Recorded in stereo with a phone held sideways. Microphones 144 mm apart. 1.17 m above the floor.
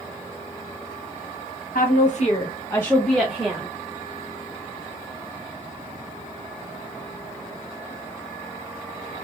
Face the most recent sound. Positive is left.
turn(degrees=-15)  # may be behind; listen again after turning